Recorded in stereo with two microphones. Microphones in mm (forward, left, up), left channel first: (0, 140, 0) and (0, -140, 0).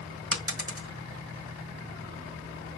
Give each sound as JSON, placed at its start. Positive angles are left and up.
{"t": 0.3, "sound": "a dropped coin", "side_deg": -50, "distance_m": 1.4}